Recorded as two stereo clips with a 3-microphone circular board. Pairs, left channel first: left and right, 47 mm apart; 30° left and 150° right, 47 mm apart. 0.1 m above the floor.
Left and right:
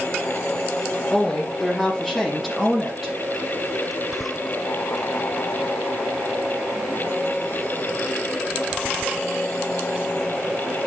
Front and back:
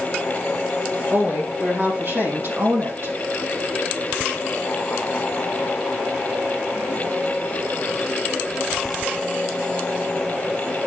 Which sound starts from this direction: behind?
A woman speaking, at 1.1 s.